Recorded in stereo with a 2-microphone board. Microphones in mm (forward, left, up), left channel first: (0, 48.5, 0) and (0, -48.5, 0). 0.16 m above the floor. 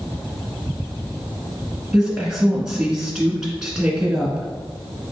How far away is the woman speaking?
About 1.3 m.